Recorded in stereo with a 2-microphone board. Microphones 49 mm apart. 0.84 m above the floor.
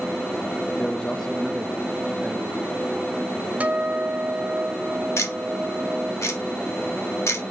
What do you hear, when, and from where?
0.7 s a man speaking: 30° left (ahead or behind), 0.5 m; by 3.5 s 20° right (ahead or behind), 1.9 m
3.6 s a guitar: 30° right (ahead or behind), 0.6 m
5.2 s ticking: 60° left (ahead or behind), 1.3 m